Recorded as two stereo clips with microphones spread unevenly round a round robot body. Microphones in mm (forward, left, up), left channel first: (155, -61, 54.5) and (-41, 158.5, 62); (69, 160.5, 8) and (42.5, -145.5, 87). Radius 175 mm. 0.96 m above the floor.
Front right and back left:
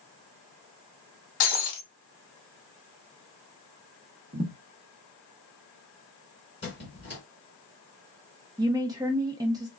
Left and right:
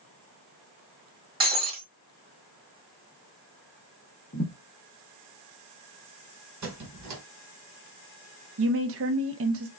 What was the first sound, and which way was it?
Breaking glass, 35° right.